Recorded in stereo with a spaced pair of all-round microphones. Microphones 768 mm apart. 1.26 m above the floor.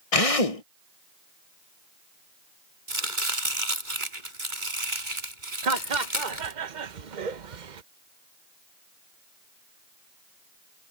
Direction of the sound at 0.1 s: 50° left (ahead or behind).